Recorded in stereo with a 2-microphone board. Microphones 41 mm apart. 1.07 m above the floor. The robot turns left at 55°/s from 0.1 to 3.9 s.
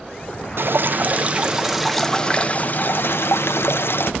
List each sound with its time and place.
0.6 s dripping: 105° right, 0.6 m; by 4.1 s 70° left, 0.6 m